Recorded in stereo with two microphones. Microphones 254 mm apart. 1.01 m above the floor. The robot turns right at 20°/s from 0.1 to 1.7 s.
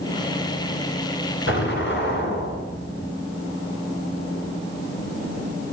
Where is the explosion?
55° left (ahead or behind), 1.8 m; by 3.1 s 50° left (ahead or behind), 1.8 m.